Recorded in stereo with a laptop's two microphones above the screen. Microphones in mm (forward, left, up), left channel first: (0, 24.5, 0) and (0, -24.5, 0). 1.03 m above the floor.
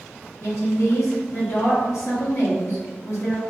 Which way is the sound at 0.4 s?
60° left (ahead or behind).